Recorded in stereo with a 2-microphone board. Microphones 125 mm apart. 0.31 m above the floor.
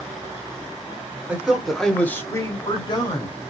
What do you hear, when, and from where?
1.3 s a man speaking: 10° right (ahead or behind), 0.9 m; by 3.5 s 45° left (ahead or behind), 1.2 m